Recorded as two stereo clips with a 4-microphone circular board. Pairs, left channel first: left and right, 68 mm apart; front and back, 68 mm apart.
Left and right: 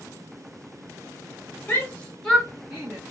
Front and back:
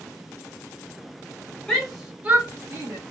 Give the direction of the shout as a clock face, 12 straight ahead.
10 o'clock.